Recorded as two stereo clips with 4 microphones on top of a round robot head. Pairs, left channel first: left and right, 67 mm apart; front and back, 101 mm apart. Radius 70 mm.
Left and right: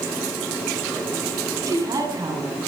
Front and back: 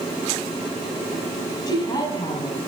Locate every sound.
1.7 s a woman speaking: 60° right, 6 m